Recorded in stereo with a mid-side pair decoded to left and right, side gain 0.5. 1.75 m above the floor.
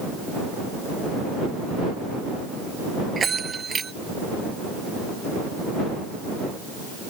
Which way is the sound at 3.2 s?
35° right.